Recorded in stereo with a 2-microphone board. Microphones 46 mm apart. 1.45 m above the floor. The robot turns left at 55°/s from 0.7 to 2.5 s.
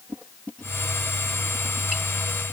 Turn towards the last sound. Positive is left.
No sound to turn to.